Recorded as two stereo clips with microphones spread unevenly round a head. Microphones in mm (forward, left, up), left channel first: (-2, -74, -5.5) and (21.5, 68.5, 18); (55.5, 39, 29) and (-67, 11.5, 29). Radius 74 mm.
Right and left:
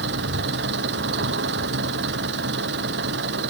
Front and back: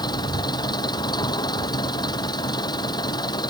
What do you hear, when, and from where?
0.0 s an engine running: 70° left